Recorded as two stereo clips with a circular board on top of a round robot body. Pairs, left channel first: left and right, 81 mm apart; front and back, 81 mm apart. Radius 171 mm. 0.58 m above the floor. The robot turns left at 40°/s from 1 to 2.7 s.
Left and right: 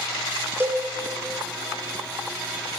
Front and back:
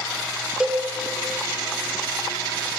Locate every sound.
0.6 s a cowbell: 115° right, 0.8 m